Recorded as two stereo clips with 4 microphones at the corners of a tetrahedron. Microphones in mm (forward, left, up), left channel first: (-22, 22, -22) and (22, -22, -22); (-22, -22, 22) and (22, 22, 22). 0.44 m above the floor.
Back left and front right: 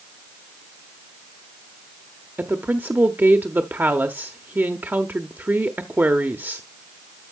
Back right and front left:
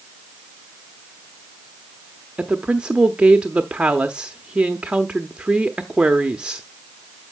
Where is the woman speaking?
15° right, 0.9 m.